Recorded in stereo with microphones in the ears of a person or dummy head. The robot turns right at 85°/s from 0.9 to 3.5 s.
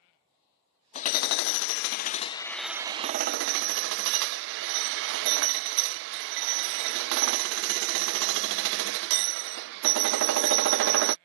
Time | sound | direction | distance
0.9 | hammering | 40° left | ?